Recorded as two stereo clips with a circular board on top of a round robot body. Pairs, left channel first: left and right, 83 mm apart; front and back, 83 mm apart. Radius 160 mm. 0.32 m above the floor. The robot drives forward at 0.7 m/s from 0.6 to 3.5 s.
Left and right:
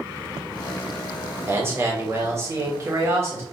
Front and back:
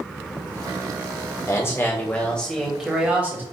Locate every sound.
1.5 s a man speaking: 40° right, 1.6 m; by 3.4 s 130° right, 1.4 m